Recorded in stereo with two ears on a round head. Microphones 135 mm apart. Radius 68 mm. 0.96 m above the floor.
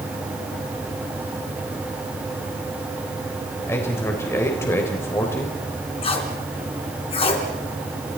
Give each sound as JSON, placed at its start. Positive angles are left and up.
{"t": 3.7, "sound": "a man speaking", "side_deg": 15, "distance_m": 3.5}
{"t": 6.0, "sound": "tape being pulled", "side_deg": 40, "distance_m": 3.5}